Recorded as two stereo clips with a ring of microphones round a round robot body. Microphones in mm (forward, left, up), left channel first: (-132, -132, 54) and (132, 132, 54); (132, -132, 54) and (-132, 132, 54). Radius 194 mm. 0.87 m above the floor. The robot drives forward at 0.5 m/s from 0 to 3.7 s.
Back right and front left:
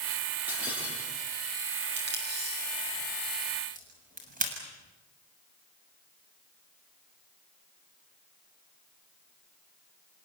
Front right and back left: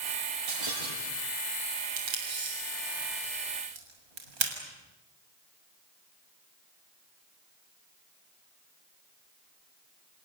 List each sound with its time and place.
0.5 s breaking glass: 130° left, 8.5 m; by 1.3 s 135° left, 8.5 m
2.0 s tape being pulled: 110° left, 6.5 m; by 4.5 s 115° left, 7 m